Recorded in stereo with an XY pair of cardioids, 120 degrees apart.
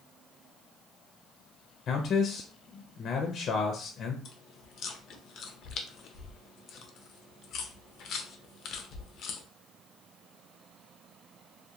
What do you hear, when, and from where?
1.9 s a man speaking: 50° left, 0.6 m
4.2 s chewing: 60° left, 0.5 m